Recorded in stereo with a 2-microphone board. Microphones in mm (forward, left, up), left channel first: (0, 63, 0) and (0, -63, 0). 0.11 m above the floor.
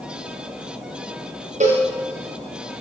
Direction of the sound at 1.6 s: 70° right (ahead or behind).